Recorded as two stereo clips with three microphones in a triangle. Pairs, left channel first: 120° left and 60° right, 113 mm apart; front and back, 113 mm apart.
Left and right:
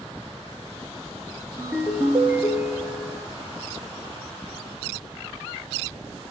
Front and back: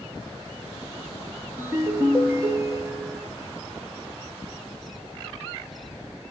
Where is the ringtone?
125° right, 1.3 m.